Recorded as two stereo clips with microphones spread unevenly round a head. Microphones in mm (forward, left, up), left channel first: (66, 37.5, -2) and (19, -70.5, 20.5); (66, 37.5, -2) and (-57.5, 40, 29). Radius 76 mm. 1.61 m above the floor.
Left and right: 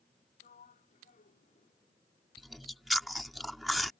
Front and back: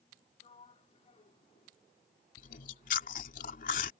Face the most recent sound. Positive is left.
turn(degrees=-35)